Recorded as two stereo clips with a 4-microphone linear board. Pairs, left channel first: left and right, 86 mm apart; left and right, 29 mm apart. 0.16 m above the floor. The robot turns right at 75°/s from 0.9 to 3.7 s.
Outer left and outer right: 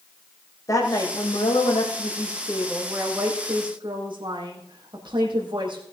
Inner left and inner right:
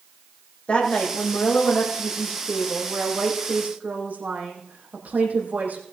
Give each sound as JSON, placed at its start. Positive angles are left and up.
{"t": 0.7, "sound": "a woman speaking", "azimuth_deg": 40, "distance_m": 6.0}